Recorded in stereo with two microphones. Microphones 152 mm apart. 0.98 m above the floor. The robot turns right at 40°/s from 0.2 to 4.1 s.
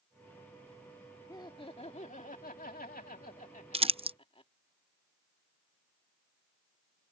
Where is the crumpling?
40° right (ahead or behind).